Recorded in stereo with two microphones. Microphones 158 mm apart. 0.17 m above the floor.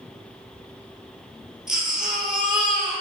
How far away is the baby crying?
About 3.5 m.